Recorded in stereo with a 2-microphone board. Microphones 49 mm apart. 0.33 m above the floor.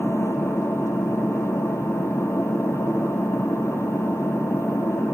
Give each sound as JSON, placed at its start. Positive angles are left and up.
{"t": 0.0, "sound": "an engine running", "side_deg": 85, "distance_m": 2.5}